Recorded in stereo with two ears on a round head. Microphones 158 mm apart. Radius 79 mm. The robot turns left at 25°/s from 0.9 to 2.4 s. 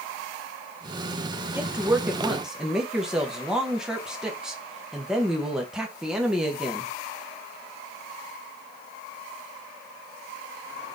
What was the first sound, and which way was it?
A woman speaking, 10° right (ahead or behind).